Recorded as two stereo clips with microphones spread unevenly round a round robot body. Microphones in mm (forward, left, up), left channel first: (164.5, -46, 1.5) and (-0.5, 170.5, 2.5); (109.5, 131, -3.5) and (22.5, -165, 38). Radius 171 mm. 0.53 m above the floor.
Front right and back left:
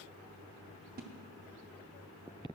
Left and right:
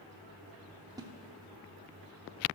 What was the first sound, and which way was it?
A splash, 170° left.